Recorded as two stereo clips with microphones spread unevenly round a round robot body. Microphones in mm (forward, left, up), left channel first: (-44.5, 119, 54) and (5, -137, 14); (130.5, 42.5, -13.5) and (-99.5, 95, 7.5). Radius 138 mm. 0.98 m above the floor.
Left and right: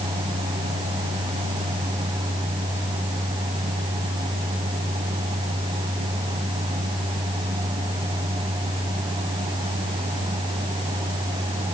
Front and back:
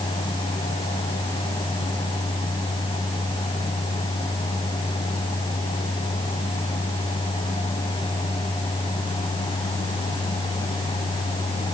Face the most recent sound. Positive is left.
No sound to turn to.